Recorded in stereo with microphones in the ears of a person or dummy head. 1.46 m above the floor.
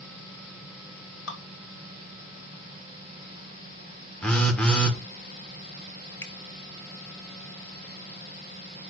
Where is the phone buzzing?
Centre (ahead or behind), 0.8 m.